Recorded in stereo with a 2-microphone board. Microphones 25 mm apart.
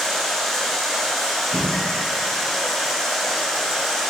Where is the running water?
15° left (ahead or behind), 1.9 m.